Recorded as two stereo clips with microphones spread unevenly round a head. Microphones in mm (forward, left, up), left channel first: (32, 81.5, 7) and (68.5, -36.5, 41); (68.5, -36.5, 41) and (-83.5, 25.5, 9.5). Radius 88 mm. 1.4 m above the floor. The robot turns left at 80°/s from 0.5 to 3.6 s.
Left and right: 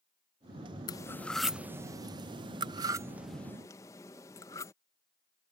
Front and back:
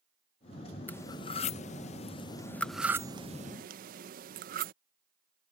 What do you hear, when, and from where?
0.9 s cutlery clinking: 45° left; by 4.7 s 170° right